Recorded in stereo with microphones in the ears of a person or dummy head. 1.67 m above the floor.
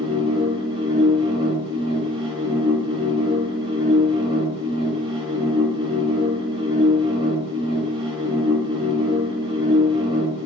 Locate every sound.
0.0 s a machine running: 30° right (ahead or behind), 0.8 m